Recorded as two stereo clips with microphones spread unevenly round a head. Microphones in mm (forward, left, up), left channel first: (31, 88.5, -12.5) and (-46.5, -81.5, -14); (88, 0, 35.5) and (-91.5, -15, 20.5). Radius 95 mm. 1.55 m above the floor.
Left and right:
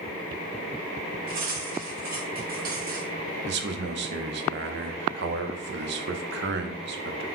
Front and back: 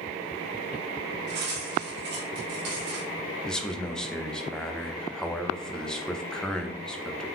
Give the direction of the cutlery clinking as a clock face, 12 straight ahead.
5 o'clock.